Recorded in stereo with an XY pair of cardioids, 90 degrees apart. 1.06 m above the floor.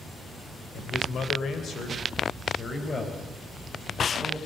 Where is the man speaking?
70° left, 3.5 m; by 4.4 s 25° left, 6 m.